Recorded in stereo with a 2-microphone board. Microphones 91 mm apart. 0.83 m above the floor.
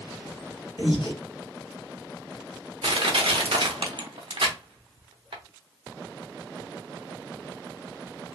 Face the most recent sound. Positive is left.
turn(degrees=-80)